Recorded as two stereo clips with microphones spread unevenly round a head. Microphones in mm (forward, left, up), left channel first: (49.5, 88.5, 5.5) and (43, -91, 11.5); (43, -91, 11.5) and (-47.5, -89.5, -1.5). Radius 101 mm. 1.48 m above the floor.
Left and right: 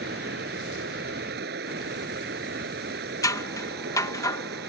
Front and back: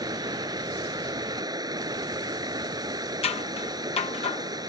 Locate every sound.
0.0 s running water: 135° right
3.2 s scissors: 15° left